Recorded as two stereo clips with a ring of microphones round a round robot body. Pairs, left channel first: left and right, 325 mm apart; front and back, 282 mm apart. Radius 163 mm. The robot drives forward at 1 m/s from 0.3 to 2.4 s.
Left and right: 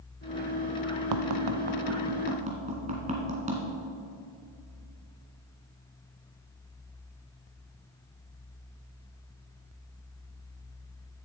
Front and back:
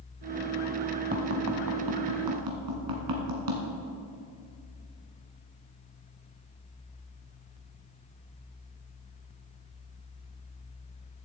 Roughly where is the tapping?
Behind right.